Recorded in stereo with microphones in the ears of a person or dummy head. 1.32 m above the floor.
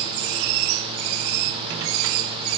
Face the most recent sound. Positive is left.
No sound to turn to.